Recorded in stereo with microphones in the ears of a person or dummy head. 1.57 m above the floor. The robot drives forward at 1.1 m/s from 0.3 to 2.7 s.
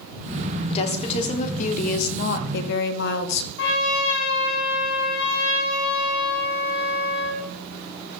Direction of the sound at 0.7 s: 40° left (ahead or behind).